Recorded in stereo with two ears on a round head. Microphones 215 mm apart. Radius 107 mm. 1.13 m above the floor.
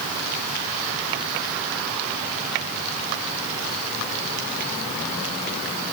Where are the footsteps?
No footsteps in this recording.